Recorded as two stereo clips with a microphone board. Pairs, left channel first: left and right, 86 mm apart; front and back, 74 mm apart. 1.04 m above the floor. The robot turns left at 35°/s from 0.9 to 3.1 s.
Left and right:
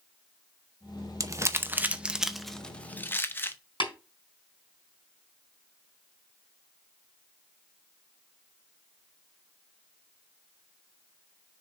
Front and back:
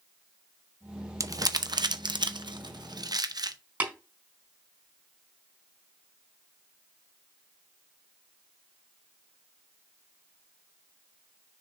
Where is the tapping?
110° left, 4 m.